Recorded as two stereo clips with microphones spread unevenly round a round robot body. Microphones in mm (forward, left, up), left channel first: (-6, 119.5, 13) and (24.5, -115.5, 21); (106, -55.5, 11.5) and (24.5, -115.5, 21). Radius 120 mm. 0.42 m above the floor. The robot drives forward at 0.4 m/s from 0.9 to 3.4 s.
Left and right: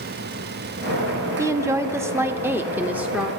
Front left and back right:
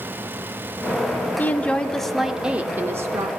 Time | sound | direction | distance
1.4 | a woman speaking | 10° right | 0.8 m